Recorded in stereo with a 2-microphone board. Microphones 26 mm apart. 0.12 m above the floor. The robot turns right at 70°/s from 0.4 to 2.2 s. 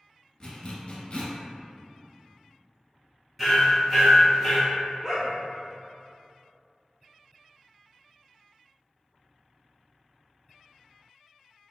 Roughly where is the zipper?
Left.